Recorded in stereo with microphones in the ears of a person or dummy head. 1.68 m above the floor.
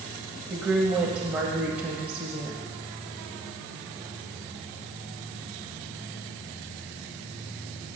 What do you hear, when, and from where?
0.5 s a woman speaking: 10° right (ahead or behind), 1.1 m